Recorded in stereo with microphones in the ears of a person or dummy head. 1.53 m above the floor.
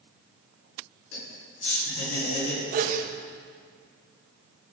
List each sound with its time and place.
1.1 s laughter: 90° left, 4.5 m
2.7 s a sneeze: 55° right (ahead or behind), 1.6 m